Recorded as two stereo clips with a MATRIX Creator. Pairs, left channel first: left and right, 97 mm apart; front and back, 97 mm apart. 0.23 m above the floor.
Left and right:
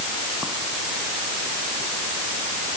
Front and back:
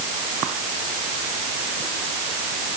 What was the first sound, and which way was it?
Only background noise.